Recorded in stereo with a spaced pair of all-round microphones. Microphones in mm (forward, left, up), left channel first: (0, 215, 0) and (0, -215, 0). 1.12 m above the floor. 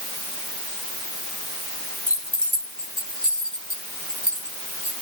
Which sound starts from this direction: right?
Keys jangling, at 2.1 s.